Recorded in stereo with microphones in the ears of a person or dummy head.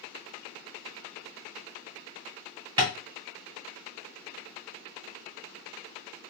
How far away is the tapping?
About 1.2 m.